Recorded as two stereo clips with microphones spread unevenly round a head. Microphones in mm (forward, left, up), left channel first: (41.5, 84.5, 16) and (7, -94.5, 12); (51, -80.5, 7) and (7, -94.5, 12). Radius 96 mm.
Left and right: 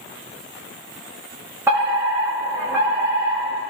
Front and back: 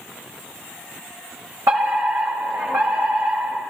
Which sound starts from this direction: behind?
A fire alarm, at 1.7 s.